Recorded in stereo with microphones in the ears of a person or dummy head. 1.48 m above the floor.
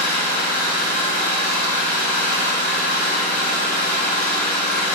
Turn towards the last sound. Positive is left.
turn(degrees=10)  # may be behind; listen again after turning